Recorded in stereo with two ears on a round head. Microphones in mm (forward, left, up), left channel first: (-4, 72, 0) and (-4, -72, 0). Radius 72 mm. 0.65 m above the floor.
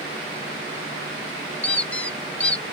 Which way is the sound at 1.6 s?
10° left (ahead or behind).